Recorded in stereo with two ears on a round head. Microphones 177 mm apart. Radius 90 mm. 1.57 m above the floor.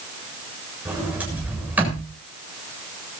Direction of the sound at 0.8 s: 10° right (ahead or behind).